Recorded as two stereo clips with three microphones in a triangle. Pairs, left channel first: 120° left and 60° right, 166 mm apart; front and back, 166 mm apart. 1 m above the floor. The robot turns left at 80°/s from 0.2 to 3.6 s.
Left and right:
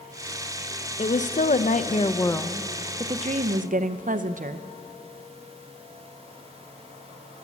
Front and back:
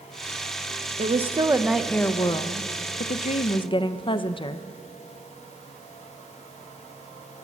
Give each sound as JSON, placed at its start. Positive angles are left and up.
{"t": 1.0, "sound": "a woman speaking", "azimuth_deg": 155, "distance_m": 0.5}